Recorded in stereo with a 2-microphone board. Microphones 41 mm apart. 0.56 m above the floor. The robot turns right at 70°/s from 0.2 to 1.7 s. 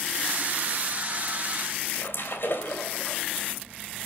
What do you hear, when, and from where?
1.9 s a splash: 65° left (ahead or behind), 3 m